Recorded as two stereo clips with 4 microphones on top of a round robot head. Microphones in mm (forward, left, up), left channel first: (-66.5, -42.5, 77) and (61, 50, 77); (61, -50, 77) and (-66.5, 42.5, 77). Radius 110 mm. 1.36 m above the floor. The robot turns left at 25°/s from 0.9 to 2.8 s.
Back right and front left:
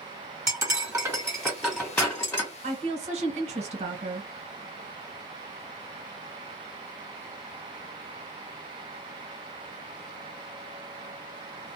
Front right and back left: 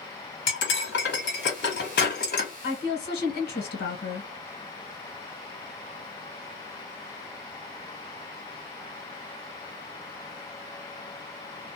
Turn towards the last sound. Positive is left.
turn(degrees=-15)